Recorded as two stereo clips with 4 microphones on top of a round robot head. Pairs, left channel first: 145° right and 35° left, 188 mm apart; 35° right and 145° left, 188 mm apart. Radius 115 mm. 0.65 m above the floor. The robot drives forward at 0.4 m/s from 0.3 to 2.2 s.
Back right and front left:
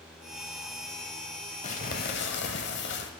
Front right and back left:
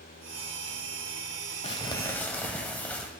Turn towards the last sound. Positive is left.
turn(degrees=-115)